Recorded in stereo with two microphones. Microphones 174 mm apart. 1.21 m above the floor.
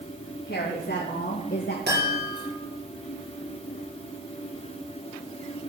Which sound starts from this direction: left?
A woman speaking, at 0.5 s.